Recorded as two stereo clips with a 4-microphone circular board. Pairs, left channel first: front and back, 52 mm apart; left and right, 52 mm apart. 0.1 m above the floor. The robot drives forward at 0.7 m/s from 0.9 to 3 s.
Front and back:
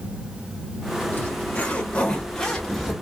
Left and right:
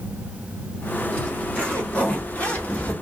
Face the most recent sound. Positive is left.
turn(degrees=100)